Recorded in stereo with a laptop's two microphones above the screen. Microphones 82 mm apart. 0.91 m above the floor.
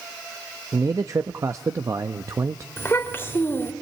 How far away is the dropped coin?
No dropped coin in this recording.